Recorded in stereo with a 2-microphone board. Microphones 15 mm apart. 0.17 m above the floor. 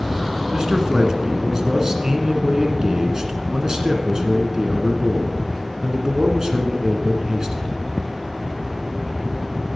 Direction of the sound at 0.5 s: 35° right (ahead or behind).